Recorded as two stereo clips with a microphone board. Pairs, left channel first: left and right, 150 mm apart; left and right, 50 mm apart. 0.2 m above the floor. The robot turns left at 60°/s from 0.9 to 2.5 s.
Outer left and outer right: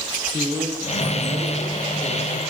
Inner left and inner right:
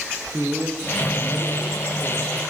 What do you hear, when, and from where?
0.3 s a man speaking: 25° right, 6 m; by 2.4 s 115° right, 6 m